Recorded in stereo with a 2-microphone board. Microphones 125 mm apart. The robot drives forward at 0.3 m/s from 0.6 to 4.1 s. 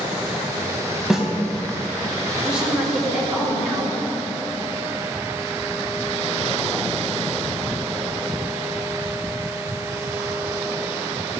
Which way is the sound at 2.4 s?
5° right (ahead or behind).